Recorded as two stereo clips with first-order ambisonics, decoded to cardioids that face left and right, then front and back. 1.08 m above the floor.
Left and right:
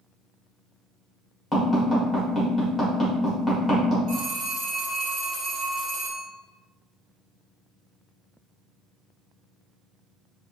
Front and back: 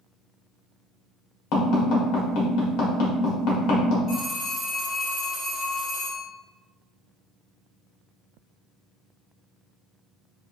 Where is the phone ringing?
55° right, 1.3 m.